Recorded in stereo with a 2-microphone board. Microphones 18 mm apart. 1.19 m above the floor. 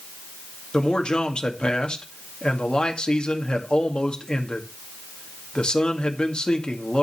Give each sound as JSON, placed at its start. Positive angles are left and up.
{"t": 0.7, "sound": "a man speaking", "side_deg": 50, "distance_m": 1.9}